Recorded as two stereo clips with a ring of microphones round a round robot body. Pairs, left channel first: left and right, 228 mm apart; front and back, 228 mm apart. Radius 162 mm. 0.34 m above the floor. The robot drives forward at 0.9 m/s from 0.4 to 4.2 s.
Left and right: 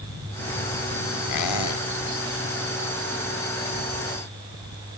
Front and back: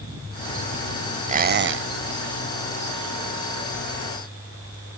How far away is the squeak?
About 0.7 m.